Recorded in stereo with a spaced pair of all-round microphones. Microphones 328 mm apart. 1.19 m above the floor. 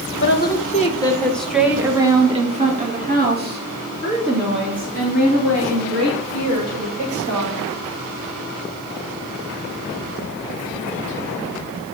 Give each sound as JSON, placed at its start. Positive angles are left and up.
{"t": 0.2, "sound": "a woman speaking", "side_deg": 35, "distance_m": 1.1}